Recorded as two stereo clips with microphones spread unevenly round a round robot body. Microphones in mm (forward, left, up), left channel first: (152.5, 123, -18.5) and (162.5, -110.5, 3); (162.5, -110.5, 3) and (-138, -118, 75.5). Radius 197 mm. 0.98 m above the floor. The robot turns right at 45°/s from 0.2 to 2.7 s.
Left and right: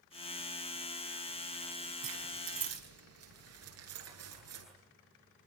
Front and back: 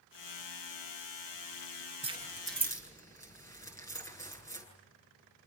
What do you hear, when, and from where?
2.0 s keys jangling: 110° right, 9.5 m; by 4.7 s 80° right, 9.5 m